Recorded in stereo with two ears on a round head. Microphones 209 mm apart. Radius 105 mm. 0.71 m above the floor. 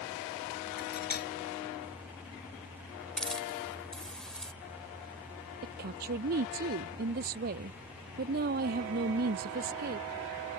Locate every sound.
0.8 s cutlery clinking: 45° left (ahead or behind)
3.2 s a hiss: 5° left (ahead or behind)
5.6 s a woman speaking: 40° right (ahead or behind)